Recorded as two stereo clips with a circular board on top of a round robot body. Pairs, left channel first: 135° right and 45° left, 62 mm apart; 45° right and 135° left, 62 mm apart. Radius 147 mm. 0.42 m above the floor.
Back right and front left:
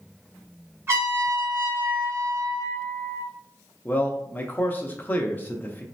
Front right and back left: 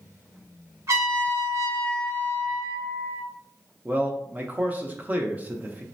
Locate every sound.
0.9 s a trumpet: 95° left, 1.9 m
3.9 s a man speaking: straight behind, 0.8 m